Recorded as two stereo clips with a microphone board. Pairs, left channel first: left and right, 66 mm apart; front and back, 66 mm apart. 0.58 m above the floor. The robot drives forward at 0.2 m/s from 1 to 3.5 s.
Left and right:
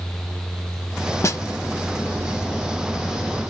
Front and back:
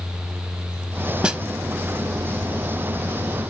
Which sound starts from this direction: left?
A snare drum, at 1.2 s.